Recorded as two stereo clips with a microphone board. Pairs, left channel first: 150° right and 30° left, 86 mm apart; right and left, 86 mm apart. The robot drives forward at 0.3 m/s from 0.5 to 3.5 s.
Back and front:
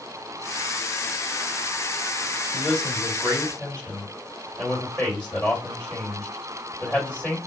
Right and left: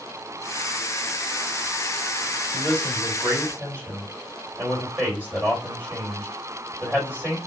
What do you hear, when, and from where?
2.5 s a man speaking: 135° left, 1.8 m; by 7.4 s 145° left, 1.9 m